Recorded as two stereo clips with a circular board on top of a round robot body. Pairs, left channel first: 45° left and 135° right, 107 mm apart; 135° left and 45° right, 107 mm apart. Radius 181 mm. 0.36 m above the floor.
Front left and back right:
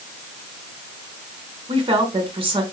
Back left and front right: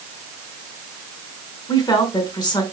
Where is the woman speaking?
175° right, 4 m.